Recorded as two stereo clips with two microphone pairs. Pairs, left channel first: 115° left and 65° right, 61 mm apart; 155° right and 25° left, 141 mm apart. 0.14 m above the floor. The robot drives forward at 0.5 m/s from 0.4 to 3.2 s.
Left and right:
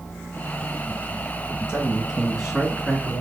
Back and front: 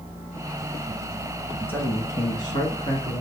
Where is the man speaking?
105° right, 1.1 m; by 3.2 s 155° right, 1.4 m.